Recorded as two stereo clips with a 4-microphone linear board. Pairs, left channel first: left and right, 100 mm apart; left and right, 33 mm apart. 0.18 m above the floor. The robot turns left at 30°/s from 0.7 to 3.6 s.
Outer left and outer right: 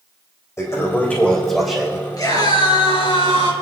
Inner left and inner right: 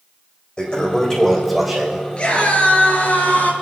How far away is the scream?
About 4 m.